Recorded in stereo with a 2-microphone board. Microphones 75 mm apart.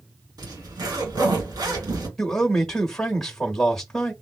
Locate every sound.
0.4 s a zipper: 65° right (ahead or behind), 1.9 m
2.2 s a man speaking: 5° left (ahead or behind), 1.1 m